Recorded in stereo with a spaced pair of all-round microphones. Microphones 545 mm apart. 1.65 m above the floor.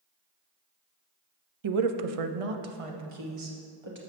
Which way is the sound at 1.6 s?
55° right (ahead or behind).